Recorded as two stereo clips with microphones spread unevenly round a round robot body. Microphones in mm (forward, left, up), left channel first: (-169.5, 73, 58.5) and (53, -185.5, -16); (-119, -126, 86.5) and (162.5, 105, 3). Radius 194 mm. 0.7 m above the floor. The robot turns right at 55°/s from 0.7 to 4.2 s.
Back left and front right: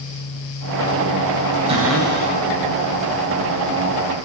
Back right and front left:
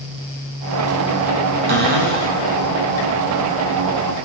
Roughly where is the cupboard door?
Ahead left.